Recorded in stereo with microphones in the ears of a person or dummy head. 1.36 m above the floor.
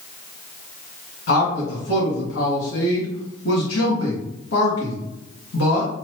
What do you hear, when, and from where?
1.3 s a man speaking: 65° left (ahead or behind), 1.8 m